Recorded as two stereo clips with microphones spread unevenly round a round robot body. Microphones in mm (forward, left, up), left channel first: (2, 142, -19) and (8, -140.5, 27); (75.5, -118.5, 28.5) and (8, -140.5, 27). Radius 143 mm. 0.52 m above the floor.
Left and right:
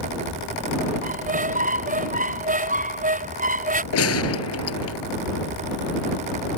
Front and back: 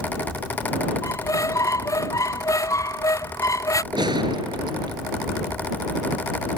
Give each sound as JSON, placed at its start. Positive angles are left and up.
{"t": 1.0, "sound": "a squeak", "azimuth_deg": -25}
{"t": 3.9, "sound": "a gunshot", "azimuth_deg": 135}